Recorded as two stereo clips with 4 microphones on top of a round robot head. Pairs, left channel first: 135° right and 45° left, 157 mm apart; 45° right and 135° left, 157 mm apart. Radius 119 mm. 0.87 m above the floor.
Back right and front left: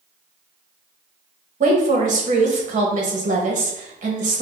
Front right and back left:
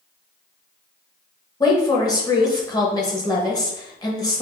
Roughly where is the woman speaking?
Ahead.